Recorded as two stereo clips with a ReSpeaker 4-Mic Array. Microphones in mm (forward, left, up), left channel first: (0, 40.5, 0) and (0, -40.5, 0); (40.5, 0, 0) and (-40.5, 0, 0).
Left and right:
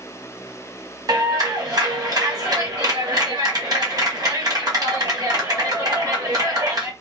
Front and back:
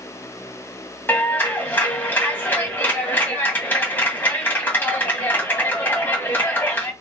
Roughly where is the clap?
Ahead right.